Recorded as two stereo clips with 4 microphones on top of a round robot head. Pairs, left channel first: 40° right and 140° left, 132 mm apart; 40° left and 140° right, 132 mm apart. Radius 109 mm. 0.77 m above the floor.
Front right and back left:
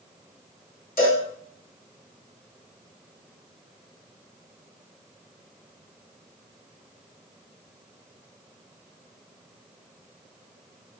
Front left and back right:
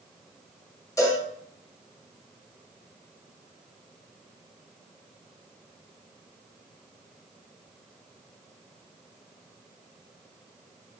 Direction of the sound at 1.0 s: 25° right.